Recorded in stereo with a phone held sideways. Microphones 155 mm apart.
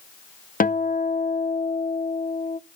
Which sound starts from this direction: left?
A guitar, at 0.6 s.